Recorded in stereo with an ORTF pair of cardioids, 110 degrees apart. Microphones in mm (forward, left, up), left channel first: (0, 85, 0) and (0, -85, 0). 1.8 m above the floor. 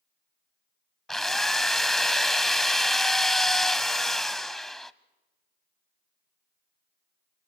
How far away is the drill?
About 0.8 m.